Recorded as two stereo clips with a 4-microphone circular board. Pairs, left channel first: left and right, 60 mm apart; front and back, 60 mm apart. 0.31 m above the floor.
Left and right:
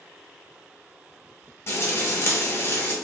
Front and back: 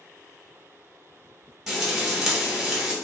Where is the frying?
95° left, 1.6 m.